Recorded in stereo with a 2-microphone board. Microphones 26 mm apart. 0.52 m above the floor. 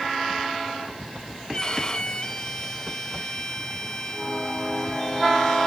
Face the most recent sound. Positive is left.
turn(degrees=35)  # may be behind; listen again after turning